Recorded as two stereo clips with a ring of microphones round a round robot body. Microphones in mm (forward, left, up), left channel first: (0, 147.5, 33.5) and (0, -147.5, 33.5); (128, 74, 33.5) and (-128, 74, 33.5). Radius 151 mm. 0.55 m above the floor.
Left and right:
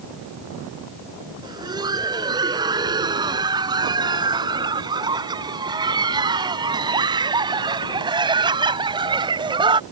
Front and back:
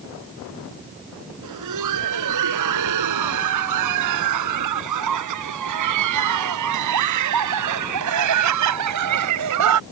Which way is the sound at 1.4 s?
165° right.